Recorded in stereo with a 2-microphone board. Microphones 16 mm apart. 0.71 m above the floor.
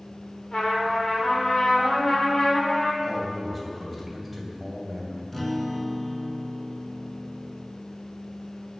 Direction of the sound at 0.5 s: 65° left (ahead or behind).